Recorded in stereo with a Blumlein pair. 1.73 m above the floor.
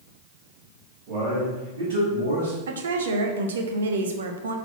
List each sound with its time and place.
1.1 s a man speaking: 40° right, 3 m; by 2.6 s 75° right, 3.5 m
2.7 s a woman speaking: 65° right, 0.8 m